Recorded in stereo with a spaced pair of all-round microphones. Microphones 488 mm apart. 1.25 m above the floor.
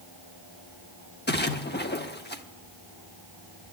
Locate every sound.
1.3 s a splash: 20° left (ahead or behind), 0.8 m